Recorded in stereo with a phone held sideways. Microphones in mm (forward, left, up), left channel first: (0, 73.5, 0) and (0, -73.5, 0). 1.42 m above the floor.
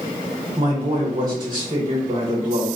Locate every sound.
0.6 s a man speaking: 30° right (ahead or behind), 1.1 m